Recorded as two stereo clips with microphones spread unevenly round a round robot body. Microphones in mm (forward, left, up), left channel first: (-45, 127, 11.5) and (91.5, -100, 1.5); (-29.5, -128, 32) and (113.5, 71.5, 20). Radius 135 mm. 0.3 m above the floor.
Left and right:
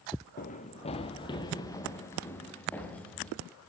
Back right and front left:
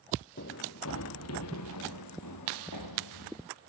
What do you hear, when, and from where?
0.4 s running footsteps: straight behind, 1.3 m; by 3.4 s 155° right, 3.5 m